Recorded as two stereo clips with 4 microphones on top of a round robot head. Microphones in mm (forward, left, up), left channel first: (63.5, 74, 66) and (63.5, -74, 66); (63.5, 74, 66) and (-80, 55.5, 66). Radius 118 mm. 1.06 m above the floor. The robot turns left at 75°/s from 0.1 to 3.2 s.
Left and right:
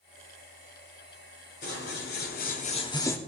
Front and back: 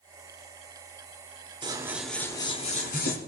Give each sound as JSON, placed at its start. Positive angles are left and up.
{"t": 1.6, "sound": "scissors", "azimuth_deg": 130, "distance_m": 1.6}